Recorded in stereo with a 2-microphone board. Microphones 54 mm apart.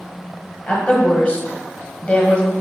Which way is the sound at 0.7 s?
20° left (ahead or behind).